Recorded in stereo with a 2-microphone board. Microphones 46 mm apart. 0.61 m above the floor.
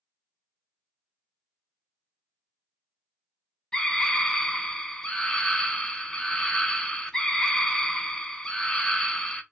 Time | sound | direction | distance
3.7 | a scream | 15° left (ahead or behind) | 0.6 m